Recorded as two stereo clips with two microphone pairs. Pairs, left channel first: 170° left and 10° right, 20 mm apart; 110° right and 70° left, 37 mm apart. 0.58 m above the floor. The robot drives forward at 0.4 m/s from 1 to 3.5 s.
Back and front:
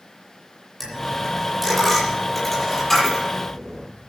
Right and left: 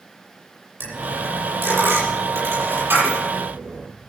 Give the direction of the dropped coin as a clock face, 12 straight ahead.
9 o'clock.